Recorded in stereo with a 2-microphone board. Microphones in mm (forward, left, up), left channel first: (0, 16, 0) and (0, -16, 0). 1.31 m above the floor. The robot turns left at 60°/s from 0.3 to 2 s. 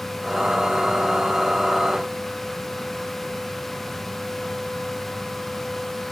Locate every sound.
Only background noise.